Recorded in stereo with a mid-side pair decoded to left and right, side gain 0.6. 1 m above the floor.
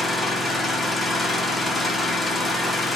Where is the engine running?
15° left, 0.8 m.